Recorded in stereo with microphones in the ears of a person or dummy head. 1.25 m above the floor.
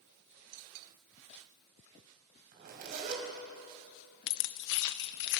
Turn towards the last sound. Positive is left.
turn(degrees=55)  # may be behind; listen again after turning